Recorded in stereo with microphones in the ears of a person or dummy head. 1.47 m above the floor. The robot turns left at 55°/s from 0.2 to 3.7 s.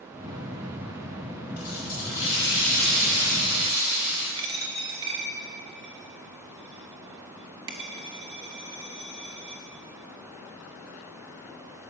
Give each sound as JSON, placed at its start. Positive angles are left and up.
{"t": 1.6, "sound": "a running tap", "azimuth_deg": 75, "distance_m": 4.0}
{"t": 4.4, "sound": "a dropped coin", "side_deg": -20, "distance_m": 0.7}